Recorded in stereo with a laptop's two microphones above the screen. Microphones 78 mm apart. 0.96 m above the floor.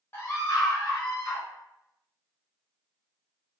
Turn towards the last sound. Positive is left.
turn(degrees=45)  # may be behind; listen again after turning